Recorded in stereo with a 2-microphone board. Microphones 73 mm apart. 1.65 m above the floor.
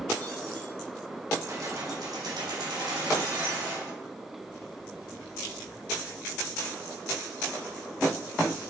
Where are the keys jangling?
40° right (ahead or behind), 1.7 m; by 3.9 s 75° right (ahead or behind), 3 m.